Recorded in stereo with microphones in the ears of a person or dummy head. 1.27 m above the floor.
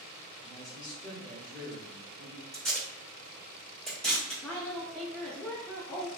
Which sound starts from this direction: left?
A man speaking, at 0.4 s.